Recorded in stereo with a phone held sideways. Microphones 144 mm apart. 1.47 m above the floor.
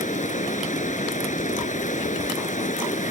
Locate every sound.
0.0 s running water: 60° left (ahead or behind)